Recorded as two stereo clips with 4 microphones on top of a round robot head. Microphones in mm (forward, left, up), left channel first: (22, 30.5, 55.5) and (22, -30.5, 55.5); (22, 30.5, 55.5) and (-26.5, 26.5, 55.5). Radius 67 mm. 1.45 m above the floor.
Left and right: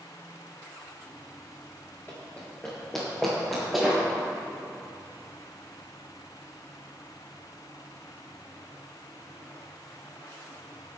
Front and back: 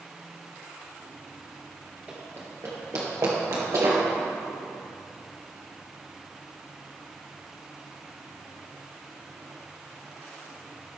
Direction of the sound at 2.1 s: 150° left.